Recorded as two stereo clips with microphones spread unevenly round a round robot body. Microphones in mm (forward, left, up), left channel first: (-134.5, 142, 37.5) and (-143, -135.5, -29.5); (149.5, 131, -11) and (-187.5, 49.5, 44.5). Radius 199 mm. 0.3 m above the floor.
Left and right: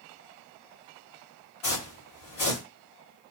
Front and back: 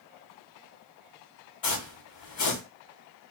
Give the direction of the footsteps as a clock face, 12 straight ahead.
10 o'clock.